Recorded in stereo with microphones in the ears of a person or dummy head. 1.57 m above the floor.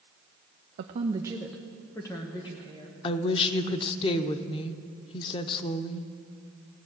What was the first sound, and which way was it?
A woman speaking, 50° right (ahead or behind).